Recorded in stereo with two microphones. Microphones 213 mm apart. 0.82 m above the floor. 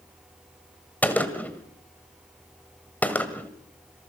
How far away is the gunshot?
About 1.7 m.